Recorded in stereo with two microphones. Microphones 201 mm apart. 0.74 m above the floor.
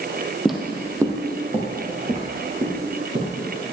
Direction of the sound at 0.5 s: Centre (ahead or behind).